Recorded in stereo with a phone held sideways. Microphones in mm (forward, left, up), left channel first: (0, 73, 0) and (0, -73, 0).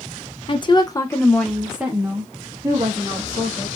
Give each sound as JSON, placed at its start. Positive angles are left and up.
{"t": 0.5, "sound": "a woman speaking", "side_deg": 35, "distance_m": 0.7}